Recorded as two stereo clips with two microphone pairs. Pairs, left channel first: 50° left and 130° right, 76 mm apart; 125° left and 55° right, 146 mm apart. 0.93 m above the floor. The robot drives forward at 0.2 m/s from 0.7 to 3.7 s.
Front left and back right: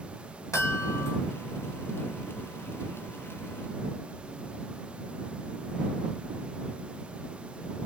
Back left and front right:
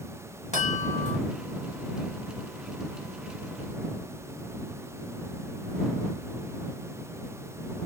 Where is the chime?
90° left, 1.8 m; by 1.2 s 95° left, 1.8 m.